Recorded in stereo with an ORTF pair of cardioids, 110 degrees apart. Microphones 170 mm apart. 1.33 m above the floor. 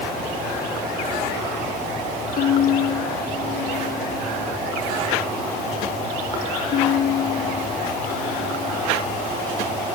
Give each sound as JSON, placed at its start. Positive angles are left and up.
{"t": 2.4, "sound": "a violin", "azimuth_deg": 60}